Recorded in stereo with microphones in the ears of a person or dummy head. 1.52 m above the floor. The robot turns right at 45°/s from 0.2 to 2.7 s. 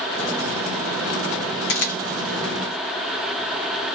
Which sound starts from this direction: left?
A camera shutter, at 1.7 s.